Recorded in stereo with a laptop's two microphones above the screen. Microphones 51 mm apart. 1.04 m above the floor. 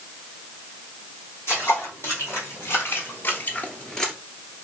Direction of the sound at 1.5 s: 50° left (ahead or behind).